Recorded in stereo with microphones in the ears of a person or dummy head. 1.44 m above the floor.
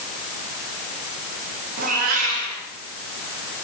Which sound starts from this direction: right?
A cat meowing, at 1.8 s.